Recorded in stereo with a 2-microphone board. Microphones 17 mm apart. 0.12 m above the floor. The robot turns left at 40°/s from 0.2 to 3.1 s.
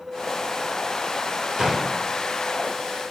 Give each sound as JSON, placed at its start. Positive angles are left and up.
{"t": 1.6, "sound": "a gunshot", "side_deg": -35, "distance_m": 2.5}